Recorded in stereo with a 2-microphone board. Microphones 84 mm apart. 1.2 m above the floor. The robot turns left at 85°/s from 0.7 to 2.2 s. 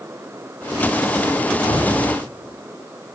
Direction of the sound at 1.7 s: 60° left.